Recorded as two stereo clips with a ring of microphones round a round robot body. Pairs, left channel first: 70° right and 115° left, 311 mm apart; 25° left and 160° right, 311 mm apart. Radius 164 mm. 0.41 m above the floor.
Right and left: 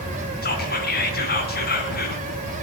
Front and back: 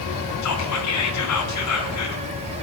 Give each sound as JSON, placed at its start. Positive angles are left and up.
{"t": 0.4, "sound": "whispering", "azimuth_deg": -10, "distance_m": 3.5}